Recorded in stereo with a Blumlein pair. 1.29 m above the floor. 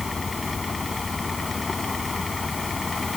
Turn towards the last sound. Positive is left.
turn(degrees=10)